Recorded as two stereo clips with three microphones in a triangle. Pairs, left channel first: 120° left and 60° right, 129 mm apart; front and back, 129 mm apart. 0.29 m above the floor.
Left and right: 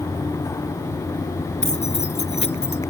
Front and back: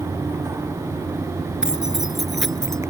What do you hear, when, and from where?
1.6 s keys jangling: 95° left; by 2.8 s 85° left